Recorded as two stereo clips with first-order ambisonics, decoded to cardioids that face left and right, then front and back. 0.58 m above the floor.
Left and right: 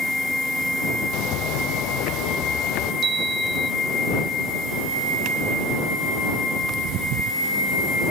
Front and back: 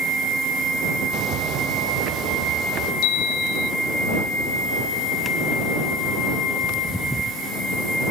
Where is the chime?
25° right.